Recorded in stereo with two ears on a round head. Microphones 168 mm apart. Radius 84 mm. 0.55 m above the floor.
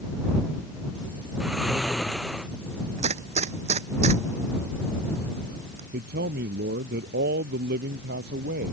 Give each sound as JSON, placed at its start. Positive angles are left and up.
{"t": 1.4, "sound": "snoring", "side_deg": -5}
{"t": 3.0, "sound": "a gunshot", "side_deg": -35}
{"t": 5.9, "sound": "a man speaking", "side_deg": -60}